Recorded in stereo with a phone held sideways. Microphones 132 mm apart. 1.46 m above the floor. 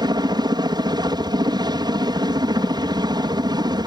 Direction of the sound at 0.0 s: 30° right (ahead or behind).